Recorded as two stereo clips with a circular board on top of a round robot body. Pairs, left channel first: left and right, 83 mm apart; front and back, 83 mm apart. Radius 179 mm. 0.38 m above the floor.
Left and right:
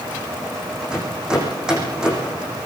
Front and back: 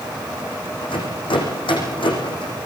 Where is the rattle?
10° right, 8.5 m.